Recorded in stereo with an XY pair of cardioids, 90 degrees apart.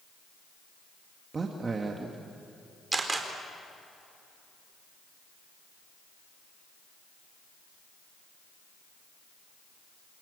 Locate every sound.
1.3 s a man speaking: 35° right, 2 m
2.9 s a camera shutter: 25° right, 4 m